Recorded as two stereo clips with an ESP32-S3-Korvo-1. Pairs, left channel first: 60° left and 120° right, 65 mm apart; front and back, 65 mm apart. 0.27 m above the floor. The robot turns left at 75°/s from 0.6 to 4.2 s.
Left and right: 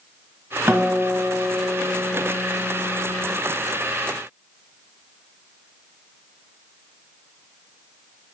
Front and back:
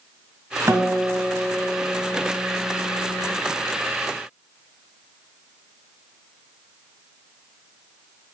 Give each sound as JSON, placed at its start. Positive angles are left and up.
{"t": 0.7, "sound": "a guitar", "azimuth_deg": -145, "distance_m": 1.4}